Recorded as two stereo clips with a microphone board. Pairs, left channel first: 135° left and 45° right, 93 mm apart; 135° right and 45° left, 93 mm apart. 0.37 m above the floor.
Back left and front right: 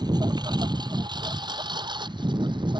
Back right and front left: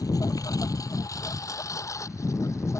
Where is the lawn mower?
85° right; by 2.8 s 80° right.